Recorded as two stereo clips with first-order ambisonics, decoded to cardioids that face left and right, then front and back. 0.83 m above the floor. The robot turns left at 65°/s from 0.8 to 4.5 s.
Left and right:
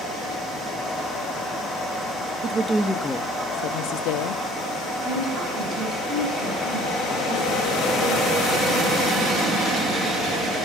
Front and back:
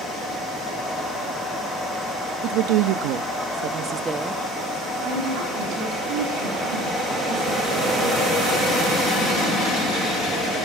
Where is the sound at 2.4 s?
150° right, 0.9 m; by 4.4 s 80° left, 0.9 m.